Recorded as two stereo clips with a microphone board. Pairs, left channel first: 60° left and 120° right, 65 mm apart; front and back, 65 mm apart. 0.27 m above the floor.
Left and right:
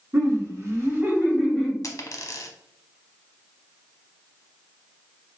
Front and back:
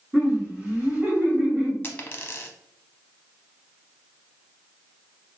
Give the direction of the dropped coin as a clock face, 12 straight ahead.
10 o'clock.